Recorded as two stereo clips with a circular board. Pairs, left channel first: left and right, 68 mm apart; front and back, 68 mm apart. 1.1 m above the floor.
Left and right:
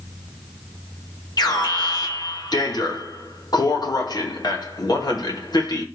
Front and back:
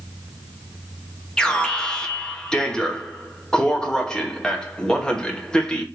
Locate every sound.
1.4 s an alarm: 75° left, 1.0 m